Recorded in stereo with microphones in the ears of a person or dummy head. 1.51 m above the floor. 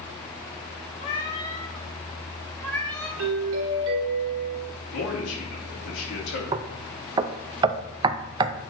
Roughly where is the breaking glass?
No breaking glass in this recording.